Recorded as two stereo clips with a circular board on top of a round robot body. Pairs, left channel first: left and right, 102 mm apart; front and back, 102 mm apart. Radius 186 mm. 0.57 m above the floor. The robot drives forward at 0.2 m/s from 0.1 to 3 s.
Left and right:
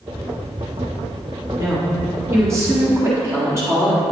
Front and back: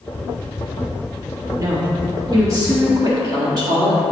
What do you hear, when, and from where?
1.6 s a woman speaking: 140° right, 1.6 m; by 4.0 s 145° right, 1.7 m